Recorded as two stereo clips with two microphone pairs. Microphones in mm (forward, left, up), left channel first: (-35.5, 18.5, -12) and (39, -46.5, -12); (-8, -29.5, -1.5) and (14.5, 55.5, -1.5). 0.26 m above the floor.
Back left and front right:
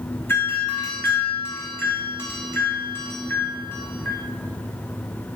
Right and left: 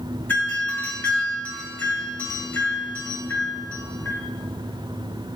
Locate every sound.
0.3 s a doorbell: 165° right, 2.5 m